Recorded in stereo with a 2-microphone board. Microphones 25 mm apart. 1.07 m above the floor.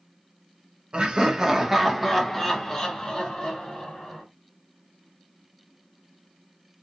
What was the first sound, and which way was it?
Laughter, 40° right (ahead or behind).